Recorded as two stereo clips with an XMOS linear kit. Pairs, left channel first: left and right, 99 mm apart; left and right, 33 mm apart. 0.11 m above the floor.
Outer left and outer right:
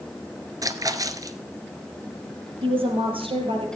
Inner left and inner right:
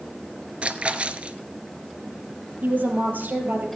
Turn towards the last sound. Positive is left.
turn(degrees=-60)  # may be behind; listen again after turning